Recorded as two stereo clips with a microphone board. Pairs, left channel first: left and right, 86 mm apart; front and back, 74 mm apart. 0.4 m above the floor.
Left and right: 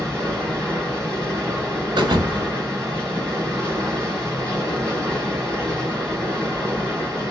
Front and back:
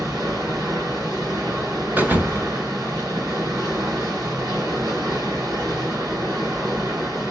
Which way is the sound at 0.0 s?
170° left.